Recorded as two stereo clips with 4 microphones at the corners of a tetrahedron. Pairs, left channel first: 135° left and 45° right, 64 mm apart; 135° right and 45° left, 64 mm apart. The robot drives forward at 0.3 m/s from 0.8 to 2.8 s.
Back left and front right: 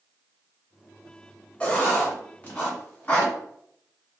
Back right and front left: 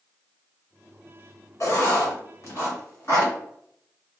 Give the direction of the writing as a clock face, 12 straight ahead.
5 o'clock.